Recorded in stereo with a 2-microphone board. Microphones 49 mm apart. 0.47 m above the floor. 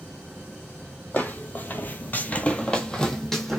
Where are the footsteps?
35° left (ahead or behind), 0.8 m; by 3.6 s 5° left (ahead or behind), 1.0 m.